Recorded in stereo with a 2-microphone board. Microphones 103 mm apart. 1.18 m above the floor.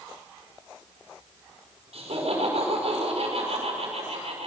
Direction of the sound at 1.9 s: 85° right.